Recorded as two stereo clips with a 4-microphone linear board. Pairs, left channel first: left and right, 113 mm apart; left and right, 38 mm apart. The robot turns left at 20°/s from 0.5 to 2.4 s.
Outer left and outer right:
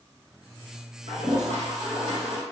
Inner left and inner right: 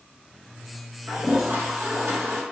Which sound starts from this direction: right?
A toilet flushing, at 1.1 s.